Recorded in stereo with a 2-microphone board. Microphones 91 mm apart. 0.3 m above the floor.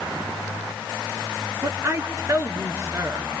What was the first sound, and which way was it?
A woman speaking, 35° right (ahead or behind).